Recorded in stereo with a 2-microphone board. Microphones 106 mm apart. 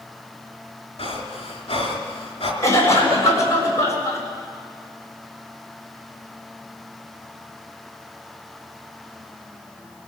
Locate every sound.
1.0 s breathing: 65° left (ahead or behind), 3 m
2.6 s a cough: 30° left (ahead or behind), 7 m